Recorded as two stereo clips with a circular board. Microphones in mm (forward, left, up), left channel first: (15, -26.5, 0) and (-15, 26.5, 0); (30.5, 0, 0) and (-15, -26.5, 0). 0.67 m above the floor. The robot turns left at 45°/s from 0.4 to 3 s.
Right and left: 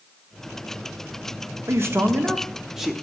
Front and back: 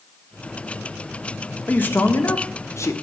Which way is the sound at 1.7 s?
85° left.